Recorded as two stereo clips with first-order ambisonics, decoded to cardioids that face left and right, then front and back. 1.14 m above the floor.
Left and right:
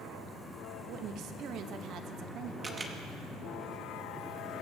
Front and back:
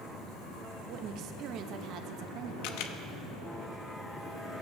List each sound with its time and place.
0.9 s a woman speaking: 135° right, 1.0 m
2.6 s a camera shutter: 15° right, 0.9 m